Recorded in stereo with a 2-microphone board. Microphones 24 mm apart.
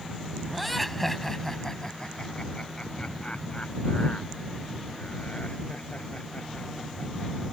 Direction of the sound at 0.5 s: Centre (ahead or behind).